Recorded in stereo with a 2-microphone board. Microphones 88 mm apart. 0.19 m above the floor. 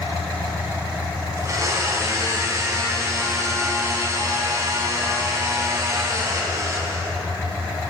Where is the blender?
40° right (ahead or behind), 1.1 m.